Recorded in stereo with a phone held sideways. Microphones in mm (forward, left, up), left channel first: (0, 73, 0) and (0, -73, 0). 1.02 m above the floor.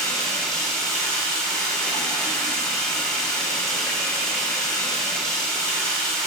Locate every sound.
0.0 s running water: 5° left (ahead or behind), 5 m